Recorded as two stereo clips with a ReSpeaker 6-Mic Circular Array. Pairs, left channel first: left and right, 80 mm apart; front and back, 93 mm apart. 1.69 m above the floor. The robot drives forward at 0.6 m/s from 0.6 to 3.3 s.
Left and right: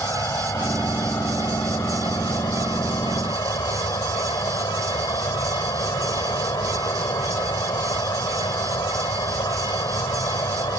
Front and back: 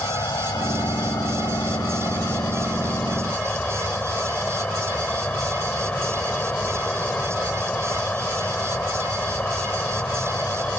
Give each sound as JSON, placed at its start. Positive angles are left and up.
{"t": 0.0, "sound": "an insect", "azimuth_deg": 45}